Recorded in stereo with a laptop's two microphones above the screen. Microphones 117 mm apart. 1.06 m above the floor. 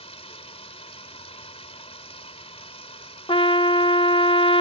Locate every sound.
0.0 s running water: 60° left (ahead or behind)
3.3 s a trumpet: 45° left (ahead or behind)